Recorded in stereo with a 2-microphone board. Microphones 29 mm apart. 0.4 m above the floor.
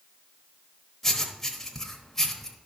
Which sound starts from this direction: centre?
Writing, at 1.0 s.